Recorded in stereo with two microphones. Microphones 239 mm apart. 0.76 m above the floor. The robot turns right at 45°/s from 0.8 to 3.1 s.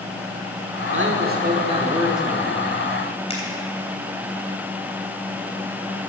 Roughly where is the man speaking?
Ahead right.